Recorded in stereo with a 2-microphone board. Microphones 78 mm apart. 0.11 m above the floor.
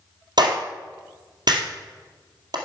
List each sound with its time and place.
0.4 s a clap: 60° right (ahead or behind), 2 m